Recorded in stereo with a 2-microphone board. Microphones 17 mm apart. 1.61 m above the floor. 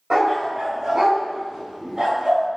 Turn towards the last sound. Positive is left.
turn(degrees=-45)  # may be behind; listen again after turning